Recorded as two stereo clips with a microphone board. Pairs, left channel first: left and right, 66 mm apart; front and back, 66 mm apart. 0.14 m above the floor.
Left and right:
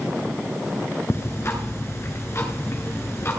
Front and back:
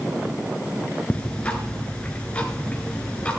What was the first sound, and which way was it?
Ticking, 65° left.